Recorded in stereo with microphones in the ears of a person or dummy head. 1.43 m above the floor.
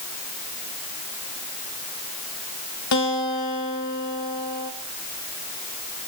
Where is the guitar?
80° left, 4 m.